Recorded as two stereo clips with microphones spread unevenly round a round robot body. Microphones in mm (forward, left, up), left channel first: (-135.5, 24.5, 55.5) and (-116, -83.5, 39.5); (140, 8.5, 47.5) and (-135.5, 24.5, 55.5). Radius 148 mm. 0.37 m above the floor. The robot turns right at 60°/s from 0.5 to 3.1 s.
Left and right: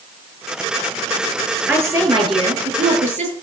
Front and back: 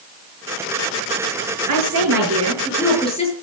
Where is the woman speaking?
160° right, 6.5 m; by 3.3 s 75° right, 6.5 m.